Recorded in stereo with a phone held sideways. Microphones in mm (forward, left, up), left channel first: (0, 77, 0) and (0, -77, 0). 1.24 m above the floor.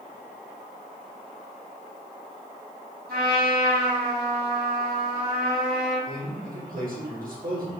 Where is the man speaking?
70° right (ahead or behind), 1.7 m.